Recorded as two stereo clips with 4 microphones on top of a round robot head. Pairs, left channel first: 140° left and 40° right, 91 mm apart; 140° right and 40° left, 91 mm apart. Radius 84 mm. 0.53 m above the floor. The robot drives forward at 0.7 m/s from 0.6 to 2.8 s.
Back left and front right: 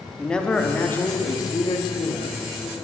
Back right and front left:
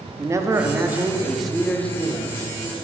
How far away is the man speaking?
About 0.9 m.